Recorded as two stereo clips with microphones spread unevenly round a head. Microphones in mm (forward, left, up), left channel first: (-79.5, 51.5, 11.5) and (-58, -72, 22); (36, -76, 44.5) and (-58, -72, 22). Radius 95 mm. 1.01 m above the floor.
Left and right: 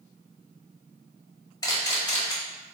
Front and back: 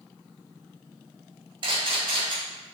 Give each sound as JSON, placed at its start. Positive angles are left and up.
{"t": 1.6, "sound": "a camera shutter", "azimuth_deg": 155, "distance_m": 1.5}